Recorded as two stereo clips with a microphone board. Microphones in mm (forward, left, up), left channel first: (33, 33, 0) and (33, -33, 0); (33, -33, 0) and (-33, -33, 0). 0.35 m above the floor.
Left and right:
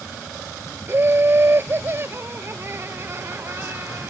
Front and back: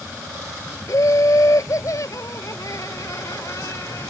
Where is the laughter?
35° right.